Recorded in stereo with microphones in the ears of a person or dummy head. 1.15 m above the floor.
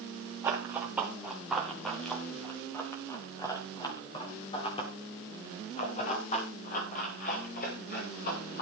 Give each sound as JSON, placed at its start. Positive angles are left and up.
{"t": 0.4, "sound": "running footsteps", "side_deg": -15, "distance_m": 4.0}